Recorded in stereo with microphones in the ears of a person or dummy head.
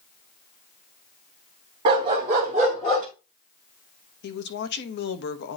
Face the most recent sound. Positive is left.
turn(degrees=60)  # may be behind; listen again after turning